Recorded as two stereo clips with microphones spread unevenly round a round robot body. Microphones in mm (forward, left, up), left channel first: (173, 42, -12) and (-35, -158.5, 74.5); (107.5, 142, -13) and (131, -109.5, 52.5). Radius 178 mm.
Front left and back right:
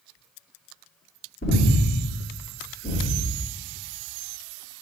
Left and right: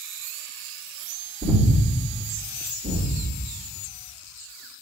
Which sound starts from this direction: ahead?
Breathing, at 1.4 s.